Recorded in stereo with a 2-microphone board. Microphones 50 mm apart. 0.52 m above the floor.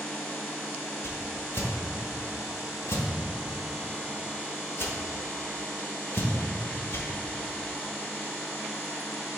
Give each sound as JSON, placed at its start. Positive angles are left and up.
{"t": 1.0, "sound": "a whoosh", "side_deg": 60, "distance_m": 1.3}